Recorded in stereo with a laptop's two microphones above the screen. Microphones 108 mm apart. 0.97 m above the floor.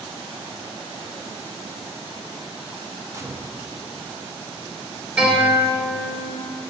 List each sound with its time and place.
3.1 s a gunshot: 30° right (ahead or behind), 0.5 m
5.2 s a guitar: 10° right (ahead or behind), 2.5 m